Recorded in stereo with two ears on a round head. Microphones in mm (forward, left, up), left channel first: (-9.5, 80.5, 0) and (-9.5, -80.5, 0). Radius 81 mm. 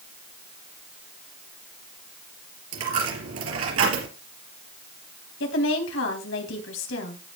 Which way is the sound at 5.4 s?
75° left (ahead or behind).